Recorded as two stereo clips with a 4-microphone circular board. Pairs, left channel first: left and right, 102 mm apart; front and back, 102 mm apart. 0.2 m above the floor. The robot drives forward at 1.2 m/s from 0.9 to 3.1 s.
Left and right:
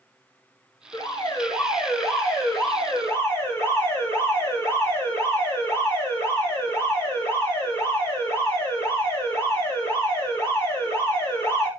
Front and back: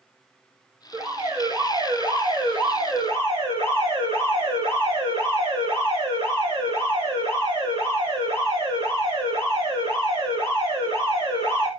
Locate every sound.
0.9 s an alarm: 135° left, 3.5 m; by 11.7 s 155° left, 5.5 m